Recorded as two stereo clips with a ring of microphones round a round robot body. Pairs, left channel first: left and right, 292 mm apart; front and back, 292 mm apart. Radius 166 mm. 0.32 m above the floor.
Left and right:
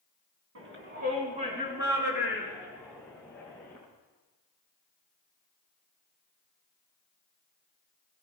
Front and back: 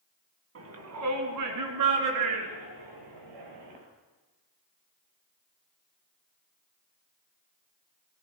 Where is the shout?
140° right, 3 m; by 3.8 s 170° left, 6.5 m.